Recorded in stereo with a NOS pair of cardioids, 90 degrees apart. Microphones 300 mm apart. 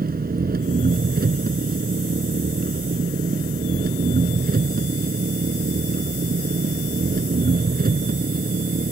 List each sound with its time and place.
0.0 s an engine running: 30° right